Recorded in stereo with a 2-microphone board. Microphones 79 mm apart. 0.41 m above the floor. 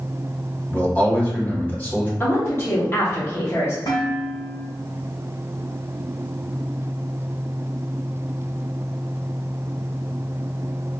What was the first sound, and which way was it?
A man speaking, 20° left (ahead or behind).